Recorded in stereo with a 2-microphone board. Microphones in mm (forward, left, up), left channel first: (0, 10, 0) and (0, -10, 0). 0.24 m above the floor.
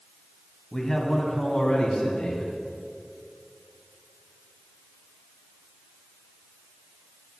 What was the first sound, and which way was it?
A man speaking, 25° left (ahead or behind).